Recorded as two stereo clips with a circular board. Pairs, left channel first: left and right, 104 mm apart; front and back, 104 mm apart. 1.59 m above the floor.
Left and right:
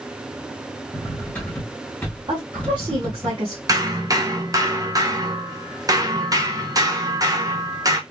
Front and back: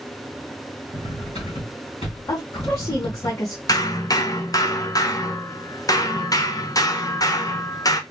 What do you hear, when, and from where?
0.9 s cutlery clinking: 15° left, 3 m
2.3 s a woman speaking: 55° right, 2.0 m
3.7 s hammering: 45° right, 0.9 m